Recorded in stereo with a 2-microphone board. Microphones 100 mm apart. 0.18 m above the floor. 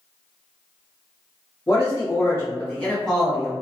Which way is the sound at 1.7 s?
40° left (ahead or behind).